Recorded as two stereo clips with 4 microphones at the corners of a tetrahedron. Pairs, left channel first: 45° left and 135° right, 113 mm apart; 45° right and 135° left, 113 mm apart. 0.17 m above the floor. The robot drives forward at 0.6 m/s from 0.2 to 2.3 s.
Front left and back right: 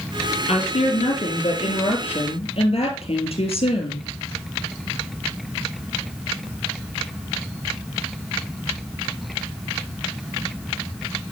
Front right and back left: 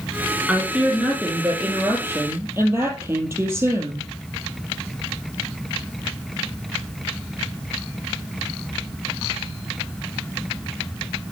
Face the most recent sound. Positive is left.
turn(degrees=70)